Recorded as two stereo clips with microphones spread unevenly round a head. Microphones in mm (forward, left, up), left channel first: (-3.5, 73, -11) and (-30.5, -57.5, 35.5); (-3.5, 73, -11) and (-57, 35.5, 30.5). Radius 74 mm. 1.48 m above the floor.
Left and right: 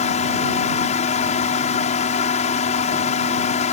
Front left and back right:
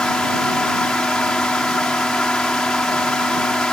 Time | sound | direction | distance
0.0 | a fan | 120° left | ?